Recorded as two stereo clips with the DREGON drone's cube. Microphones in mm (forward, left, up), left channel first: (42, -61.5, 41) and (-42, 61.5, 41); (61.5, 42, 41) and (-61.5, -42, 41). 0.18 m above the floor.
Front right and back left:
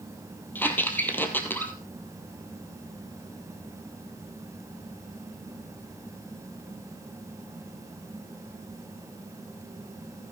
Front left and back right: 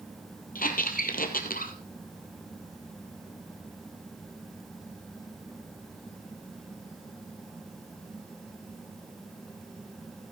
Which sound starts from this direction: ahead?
A squeak, at 0.6 s.